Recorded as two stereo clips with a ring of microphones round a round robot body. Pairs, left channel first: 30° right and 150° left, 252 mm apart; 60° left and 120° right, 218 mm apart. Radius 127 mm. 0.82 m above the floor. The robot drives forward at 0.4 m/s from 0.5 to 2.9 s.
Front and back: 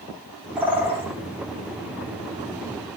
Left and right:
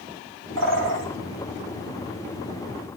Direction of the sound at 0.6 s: 125° right.